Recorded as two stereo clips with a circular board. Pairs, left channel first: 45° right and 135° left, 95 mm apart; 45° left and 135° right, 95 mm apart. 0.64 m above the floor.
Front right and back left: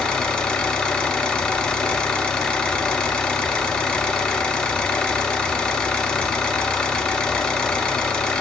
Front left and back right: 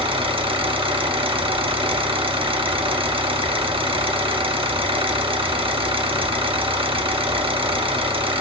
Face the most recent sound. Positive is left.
turn(degrees=-125)